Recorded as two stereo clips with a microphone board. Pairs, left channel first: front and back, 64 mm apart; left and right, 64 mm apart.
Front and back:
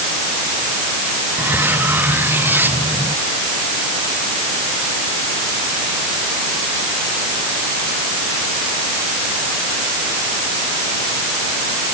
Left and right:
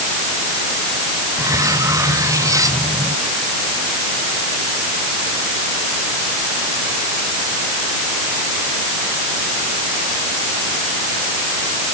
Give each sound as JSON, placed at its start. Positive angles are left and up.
{"t": 1.4, "sound": "cutlery clinking", "azimuth_deg": -120}